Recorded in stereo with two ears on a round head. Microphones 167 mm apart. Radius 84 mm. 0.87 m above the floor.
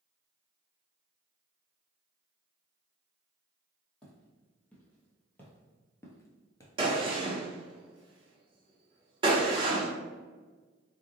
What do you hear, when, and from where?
4.0 s footsteps: 5° left (ahead or behind), 1.8 m; by 7.3 s 20° left (ahead or behind), 0.8 m
6.8 s a gunshot: 25° right (ahead or behind), 0.9 m